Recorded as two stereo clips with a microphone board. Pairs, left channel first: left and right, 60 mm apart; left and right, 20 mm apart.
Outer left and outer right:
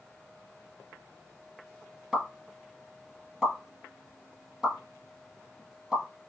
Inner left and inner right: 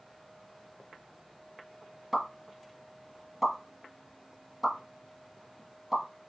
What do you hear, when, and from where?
2.1 s a pop: 5° right (ahead or behind), 2 m